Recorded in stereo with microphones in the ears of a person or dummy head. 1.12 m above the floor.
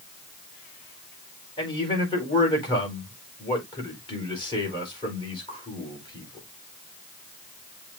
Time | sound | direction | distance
1.6 | a man speaking | 30° left (ahead or behind) | 5 m